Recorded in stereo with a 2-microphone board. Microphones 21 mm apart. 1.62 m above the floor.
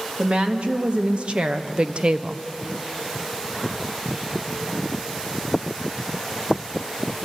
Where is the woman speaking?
55° right (ahead or behind), 2.5 m; by 2.4 s 40° right (ahead or behind), 0.7 m.